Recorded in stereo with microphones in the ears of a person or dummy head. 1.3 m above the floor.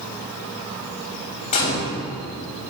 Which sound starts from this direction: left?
A gunshot, at 1.5 s.